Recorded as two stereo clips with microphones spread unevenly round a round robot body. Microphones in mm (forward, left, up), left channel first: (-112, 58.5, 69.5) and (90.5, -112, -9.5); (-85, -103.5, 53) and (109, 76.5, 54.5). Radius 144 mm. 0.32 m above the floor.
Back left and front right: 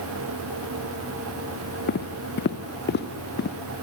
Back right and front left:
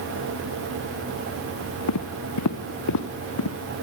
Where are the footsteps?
170° right, 2.5 m.